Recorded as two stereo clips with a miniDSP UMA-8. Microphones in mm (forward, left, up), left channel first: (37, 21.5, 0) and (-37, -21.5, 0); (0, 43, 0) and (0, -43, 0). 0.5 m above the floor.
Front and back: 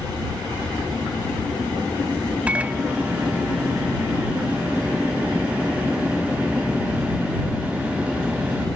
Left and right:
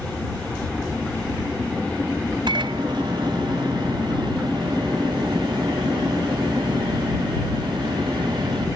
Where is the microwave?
75° right.